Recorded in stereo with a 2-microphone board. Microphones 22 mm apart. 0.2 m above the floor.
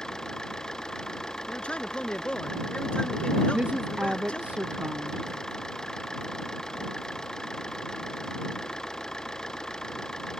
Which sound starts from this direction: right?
A woman speaking, at 3.5 s.